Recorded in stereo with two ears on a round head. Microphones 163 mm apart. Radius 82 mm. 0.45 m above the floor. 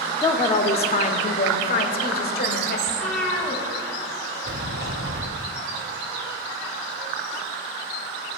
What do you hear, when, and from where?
0.2 s a woman speaking: 20° left (ahead or behind), 0.7 m; by 2.8 s 55° left (ahead or behind), 1.7 m
2.9 s a cat meowing: centre (ahead or behind), 1.7 m
4.4 s a sliding door: 65° right (ahead or behind), 1.2 m